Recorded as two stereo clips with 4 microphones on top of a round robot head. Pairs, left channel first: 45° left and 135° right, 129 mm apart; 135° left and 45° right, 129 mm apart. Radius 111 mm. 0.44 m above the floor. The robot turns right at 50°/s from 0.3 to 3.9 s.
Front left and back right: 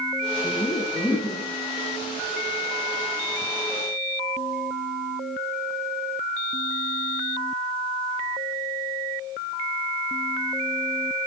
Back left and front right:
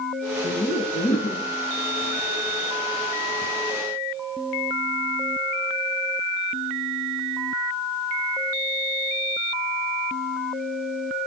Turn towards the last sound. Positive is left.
turn(degrees=-70)